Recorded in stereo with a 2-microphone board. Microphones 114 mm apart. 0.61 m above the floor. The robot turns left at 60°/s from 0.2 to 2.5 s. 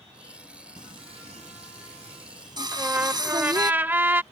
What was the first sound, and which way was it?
Singing, 35° right (ahead or behind).